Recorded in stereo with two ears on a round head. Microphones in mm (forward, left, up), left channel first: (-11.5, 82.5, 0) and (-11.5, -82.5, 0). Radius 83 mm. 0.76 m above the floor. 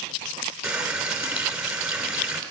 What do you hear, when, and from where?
0.6 s a running tap: 5° right (ahead or behind), 1.6 m